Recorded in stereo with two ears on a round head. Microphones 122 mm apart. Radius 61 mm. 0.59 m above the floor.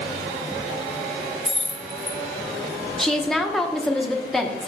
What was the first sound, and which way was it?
Keys jangling, centre (ahead or behind).